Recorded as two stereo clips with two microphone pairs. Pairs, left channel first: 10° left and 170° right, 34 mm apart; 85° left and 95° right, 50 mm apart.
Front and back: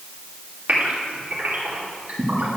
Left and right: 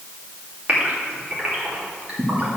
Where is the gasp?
150° right, 2.5 m.